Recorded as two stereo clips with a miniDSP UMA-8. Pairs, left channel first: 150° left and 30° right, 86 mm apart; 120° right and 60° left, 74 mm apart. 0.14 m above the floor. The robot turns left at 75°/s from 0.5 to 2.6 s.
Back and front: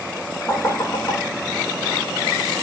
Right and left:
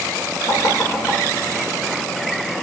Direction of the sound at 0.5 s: 135° right.